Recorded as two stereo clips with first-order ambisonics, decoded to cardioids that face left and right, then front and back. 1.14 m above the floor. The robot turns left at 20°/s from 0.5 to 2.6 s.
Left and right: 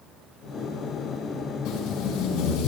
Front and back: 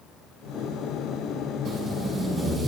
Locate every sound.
1.6 s tape being pulled: 125° left, 6.5 m; by 2.7 s 105° left, 6.5 m